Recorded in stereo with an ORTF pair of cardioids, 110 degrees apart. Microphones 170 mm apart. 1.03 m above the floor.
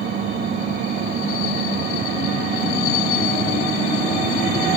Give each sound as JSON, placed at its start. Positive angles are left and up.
{"t": 0.0, "sound": "an engine running", "azimuth_deg": -60}